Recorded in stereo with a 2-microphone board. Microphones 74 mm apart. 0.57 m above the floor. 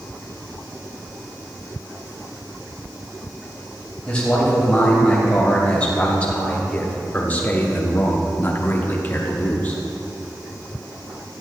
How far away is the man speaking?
About 3 m.